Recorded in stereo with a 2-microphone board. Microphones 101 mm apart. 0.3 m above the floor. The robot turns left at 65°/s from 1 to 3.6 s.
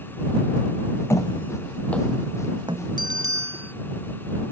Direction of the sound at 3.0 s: 120° right.